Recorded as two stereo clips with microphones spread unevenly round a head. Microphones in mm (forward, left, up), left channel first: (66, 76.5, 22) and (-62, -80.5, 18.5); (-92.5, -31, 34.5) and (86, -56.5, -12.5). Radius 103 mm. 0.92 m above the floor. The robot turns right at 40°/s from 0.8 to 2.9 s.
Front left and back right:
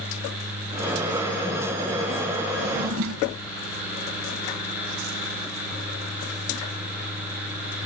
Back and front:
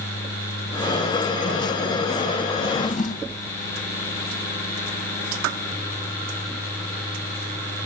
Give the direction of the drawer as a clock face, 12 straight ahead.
5 o'clock.